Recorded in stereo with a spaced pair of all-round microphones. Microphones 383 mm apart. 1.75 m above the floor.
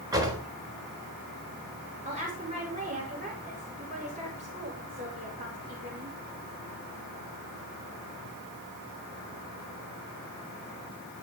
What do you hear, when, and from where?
0.1 s a drawer: 10° right (ahead or behind), 4.5 m
2.0 s a woman speaking: 20° right (ahead or behind), 6 m